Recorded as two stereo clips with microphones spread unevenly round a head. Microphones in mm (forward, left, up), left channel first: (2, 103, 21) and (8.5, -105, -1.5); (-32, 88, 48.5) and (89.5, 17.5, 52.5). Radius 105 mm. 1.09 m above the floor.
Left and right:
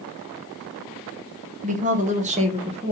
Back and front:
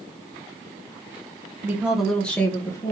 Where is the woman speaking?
100° right, 0.7 m; by 2.9 s 145° right, 1.2 m.